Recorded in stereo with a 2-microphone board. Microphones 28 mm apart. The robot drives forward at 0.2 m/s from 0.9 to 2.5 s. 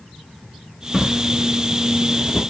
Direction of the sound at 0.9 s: 5° right (ahead or behind).